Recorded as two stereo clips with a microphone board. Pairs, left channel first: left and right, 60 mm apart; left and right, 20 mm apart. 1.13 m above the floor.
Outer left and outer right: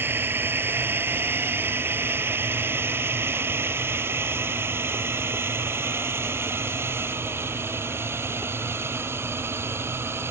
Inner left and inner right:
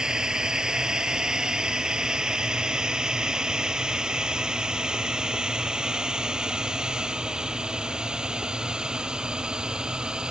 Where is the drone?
40° right (ahead or behind); by 10.3 s 45° right (ahead or behind).